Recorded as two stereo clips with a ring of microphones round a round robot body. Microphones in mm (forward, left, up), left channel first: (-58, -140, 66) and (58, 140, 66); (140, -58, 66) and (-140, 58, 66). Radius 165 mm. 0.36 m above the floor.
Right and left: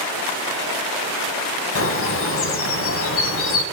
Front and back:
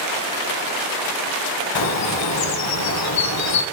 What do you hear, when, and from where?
1.8 s a bird: 60° right, 0.9 m